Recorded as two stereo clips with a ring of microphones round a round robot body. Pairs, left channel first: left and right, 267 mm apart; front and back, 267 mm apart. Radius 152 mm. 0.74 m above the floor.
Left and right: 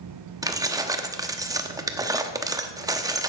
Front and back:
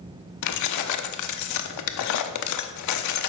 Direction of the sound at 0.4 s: 15° right.